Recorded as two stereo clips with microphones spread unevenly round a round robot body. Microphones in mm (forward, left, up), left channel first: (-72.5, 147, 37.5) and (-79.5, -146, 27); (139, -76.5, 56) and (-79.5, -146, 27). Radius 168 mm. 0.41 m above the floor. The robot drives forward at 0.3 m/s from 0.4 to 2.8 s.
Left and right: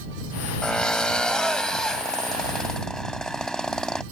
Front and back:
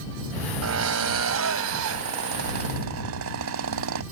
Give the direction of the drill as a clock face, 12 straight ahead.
6 o'clock.